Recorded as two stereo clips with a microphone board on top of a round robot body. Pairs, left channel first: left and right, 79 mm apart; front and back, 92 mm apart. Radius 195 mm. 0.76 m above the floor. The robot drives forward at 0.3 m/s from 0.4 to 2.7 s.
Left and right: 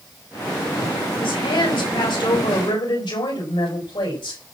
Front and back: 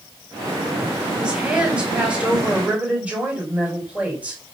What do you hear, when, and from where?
1.2 s a woman speaking: 100° left, 5.5 m; by 4.4 s 105° left, 5.5 m